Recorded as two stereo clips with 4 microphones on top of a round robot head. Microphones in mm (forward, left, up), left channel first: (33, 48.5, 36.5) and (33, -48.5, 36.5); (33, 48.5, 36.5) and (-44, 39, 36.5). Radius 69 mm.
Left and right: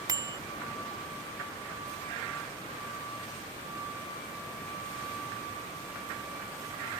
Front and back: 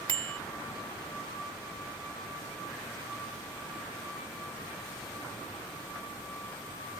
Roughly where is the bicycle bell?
Behind right.